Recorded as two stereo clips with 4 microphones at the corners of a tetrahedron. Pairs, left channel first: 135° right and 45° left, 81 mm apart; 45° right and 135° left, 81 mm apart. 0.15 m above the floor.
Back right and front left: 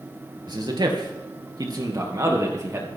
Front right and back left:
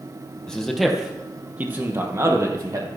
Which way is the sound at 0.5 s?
35° left.